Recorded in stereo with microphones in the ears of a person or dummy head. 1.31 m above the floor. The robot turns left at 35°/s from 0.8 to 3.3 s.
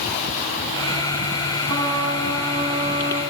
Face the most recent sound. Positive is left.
turn(degrees=-150)